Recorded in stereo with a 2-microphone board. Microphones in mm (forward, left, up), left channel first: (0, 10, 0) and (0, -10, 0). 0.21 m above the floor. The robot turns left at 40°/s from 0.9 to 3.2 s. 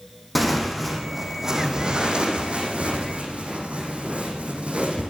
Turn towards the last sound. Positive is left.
turn(degrees=-90)